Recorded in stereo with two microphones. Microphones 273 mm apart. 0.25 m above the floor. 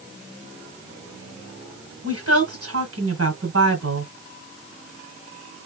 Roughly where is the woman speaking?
Right.